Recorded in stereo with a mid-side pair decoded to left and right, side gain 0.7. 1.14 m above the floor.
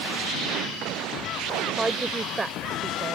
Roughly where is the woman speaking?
Ahead.